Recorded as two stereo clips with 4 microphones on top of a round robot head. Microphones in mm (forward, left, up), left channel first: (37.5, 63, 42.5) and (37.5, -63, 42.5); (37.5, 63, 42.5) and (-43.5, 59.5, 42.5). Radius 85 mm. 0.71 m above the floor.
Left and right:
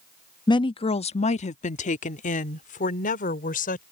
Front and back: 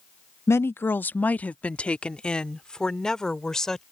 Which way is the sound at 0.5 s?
50° left.